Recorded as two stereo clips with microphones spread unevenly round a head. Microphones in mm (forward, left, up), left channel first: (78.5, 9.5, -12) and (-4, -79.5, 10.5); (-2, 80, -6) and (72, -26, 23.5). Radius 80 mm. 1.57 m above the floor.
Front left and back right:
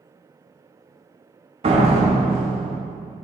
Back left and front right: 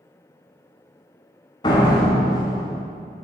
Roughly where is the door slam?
Behind.